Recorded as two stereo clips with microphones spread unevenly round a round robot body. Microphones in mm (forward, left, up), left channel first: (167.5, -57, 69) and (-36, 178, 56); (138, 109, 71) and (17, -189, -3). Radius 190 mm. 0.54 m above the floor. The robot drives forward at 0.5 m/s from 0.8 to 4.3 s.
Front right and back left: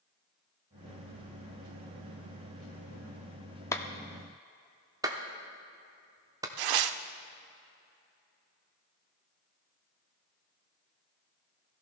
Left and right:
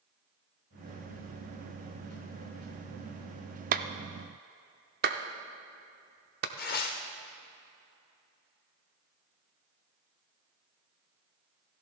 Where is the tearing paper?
135° left, 0.6 m.